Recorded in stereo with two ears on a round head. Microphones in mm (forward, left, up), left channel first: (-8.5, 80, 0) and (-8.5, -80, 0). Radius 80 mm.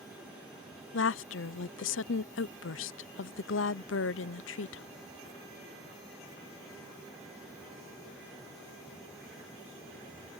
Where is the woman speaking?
75° left (ahead or behind).